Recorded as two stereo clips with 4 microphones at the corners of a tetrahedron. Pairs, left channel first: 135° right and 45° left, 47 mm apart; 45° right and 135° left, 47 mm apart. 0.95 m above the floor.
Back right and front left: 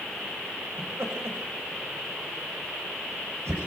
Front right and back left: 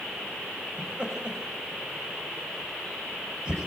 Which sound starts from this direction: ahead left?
Laughter, at 0.8 s.